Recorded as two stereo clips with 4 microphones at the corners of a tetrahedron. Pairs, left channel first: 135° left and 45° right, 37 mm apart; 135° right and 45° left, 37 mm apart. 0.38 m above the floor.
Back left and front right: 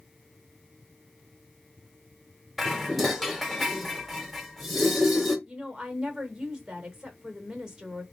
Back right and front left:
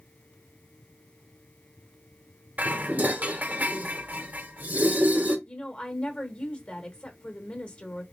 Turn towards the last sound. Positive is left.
turn(degrees=-110)